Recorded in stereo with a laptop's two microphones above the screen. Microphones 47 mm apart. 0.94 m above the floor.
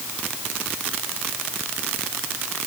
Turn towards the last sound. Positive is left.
No sound to turn to.